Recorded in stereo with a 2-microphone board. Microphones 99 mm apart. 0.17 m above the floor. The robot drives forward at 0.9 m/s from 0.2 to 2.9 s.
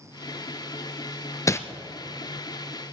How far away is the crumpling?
About 0.6 m.